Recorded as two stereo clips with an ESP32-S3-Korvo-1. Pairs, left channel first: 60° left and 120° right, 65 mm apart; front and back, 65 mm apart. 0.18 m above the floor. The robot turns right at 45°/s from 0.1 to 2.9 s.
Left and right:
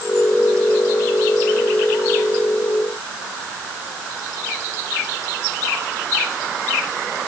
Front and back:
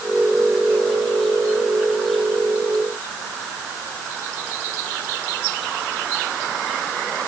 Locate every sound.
Only background noise.